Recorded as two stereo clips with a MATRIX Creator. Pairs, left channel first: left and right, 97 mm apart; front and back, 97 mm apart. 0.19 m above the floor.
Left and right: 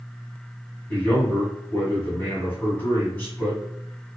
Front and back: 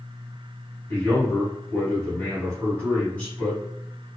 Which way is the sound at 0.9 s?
55° left.